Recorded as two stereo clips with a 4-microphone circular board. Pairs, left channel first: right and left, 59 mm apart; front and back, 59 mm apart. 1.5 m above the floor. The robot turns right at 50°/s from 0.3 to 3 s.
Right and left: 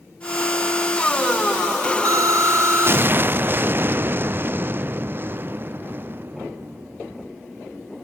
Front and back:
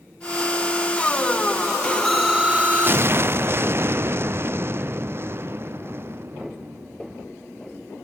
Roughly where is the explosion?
Left.